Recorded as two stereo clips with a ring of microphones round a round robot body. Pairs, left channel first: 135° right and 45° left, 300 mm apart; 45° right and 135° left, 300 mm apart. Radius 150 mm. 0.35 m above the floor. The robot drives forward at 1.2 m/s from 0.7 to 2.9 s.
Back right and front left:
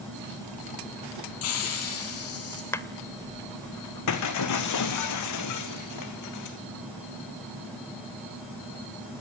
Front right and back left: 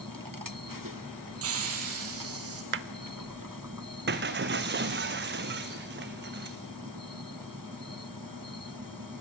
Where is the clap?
150° left, 0.8 m; by 2.9 s 155° left, 0.9 m.